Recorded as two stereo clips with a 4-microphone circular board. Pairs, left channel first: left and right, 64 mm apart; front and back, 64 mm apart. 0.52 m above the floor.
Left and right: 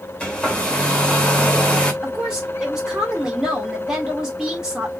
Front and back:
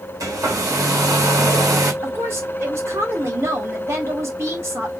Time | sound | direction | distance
0.2 | a hair dryer | 160° left | 1.1 m
2.0 | a woman speaking | 165° right | 1.7 m